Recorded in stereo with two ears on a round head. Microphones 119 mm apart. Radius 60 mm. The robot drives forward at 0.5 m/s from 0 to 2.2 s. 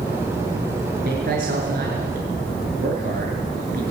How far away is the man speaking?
About 6 m.